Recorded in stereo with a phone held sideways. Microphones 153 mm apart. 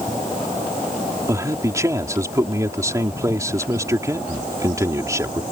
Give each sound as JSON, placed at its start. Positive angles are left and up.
{"t": 1.3, "sound": "a man speaking", "side_deg": -20}